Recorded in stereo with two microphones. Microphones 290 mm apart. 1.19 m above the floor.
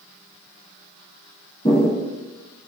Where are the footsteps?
20° left (ahead or behind), 1.9 m.